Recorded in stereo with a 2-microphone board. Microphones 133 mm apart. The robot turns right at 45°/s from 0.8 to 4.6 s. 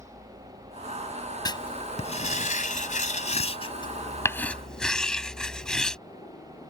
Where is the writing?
30° left (ahead or behind); by 6.0 s 5° left (ahead or behind).